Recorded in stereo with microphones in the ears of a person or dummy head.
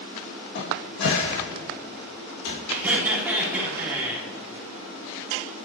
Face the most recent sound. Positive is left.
turn(degrees=-10)  # may be behind; listen again after turning